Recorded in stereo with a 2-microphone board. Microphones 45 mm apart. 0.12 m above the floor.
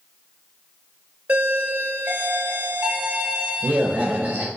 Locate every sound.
1.3 s a doorbell: 30° right (ahead or behind), 2.0 m